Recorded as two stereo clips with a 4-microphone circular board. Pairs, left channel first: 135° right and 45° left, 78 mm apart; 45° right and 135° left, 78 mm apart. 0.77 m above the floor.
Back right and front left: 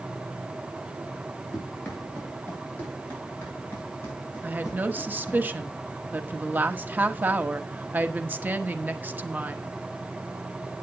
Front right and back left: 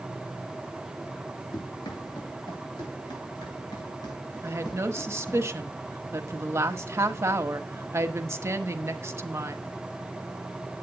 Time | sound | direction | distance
1.5 | running footsteps | 60° right | 6 m
4.4 | a woman speaking | 100° left | 1.0 m